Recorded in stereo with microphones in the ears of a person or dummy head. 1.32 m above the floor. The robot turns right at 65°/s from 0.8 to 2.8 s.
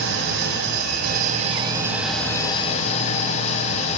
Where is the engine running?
85° right, 2 m; by 4.0 s 45° left, 2 m.